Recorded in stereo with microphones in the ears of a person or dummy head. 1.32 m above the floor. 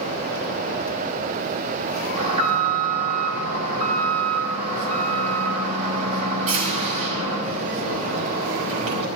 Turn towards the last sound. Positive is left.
turn(degrees=-35)  # may be behind; listen again after turning